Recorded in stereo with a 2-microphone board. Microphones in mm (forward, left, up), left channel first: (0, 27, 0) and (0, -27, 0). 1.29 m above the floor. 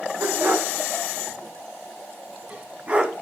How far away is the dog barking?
About 3.5 m.